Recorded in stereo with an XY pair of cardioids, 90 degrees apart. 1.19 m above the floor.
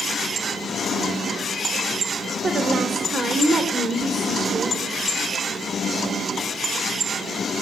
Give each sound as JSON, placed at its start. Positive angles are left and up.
{"t": 2.4, "sound": "a woman speaking", "azimuth_deg": -50, "distance_m": 3.5}